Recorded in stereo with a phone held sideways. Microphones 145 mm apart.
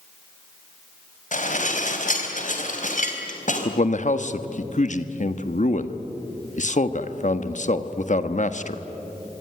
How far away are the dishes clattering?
About 3.5 m.